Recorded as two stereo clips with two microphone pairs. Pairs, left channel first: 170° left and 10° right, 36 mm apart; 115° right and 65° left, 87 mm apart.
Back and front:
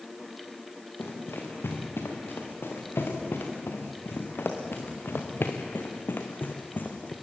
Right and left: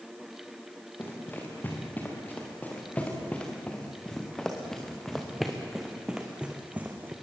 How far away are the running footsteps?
About 5.5 m.